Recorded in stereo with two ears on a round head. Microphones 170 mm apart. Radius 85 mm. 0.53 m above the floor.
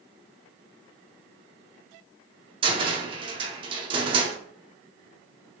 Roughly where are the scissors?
I don't hear scissors.